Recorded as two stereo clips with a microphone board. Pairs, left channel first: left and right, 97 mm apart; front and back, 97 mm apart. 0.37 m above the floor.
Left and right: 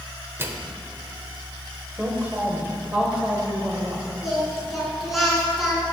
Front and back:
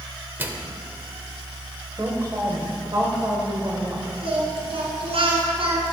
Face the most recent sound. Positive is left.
turn(degrees=180)